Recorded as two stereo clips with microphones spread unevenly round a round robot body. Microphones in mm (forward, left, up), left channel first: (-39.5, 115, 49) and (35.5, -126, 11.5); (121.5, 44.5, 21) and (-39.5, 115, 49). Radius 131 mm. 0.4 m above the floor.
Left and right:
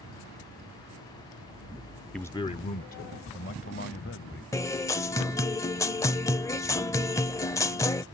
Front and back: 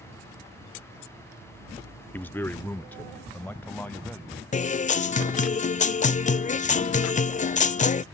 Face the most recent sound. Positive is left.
turn(degrees=25)